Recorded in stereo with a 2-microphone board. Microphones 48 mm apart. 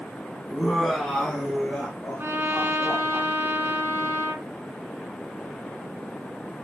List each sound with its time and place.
0.5 s laughter: centre (ahead or behind), 1.4 m; by 3.2 s 20° left (ahead or behind), 2 m
2.2 s a trumpet: 50° right (ahead or behind), 1.5 m